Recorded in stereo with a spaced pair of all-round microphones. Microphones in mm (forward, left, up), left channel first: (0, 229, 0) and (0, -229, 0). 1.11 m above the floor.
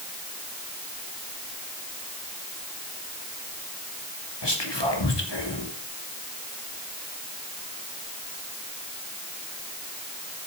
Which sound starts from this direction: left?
Whispering, at 4.4 s.